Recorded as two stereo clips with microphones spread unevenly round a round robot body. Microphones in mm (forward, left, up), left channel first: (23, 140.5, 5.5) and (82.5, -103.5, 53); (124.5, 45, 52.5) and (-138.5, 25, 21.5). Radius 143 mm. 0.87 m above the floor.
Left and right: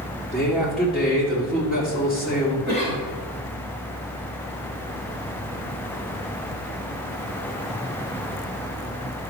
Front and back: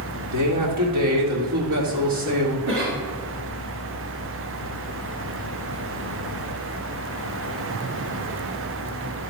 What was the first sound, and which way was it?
A man speaking, 170° right.